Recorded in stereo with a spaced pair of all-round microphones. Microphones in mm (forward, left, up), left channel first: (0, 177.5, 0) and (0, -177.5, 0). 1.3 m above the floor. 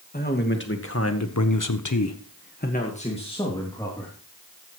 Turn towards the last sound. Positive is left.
turn(degrees=10)  # may be behind; listen again after turning